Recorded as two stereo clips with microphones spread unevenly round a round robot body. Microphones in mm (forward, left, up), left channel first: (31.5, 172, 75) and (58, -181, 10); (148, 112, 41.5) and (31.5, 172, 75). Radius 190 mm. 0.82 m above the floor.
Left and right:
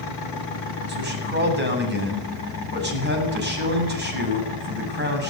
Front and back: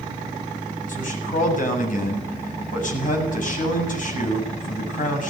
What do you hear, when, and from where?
0.9 s a man speaking: 25° right, 8 m